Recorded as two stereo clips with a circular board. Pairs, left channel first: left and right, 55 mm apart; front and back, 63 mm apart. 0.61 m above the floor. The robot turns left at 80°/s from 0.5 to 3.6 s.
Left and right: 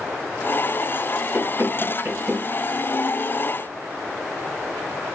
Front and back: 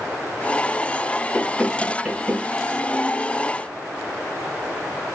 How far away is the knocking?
About 1.4 m.